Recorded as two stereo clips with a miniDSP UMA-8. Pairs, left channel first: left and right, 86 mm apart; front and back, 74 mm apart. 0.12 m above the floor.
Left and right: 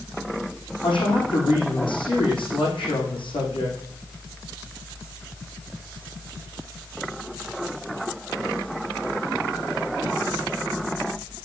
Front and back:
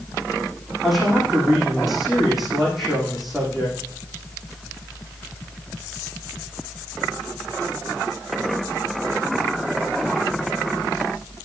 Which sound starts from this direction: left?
A woman speaking, at 0.8 s.